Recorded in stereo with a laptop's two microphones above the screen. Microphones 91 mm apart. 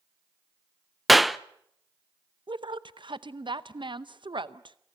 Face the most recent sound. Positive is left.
turn(degrees=-60)  # may be behind; listen again after turning